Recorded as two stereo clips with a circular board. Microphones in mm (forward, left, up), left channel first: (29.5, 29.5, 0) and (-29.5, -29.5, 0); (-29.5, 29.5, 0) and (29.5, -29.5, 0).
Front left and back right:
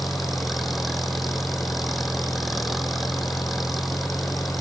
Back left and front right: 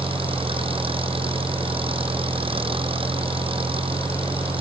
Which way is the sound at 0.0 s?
45° right.